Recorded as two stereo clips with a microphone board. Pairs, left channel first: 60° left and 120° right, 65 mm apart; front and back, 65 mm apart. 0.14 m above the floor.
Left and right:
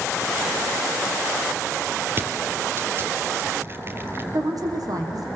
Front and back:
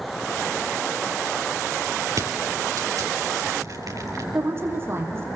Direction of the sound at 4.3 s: 130° right.